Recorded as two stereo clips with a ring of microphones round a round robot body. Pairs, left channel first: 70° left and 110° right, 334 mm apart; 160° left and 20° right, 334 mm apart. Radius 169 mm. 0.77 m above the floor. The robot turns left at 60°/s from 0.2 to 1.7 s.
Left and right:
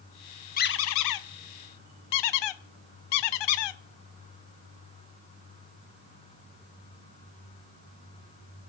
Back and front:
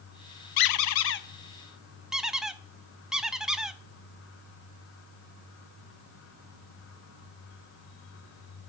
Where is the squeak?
135° left, 0.7 m; by 3.8 s 65° left, 0.7 m.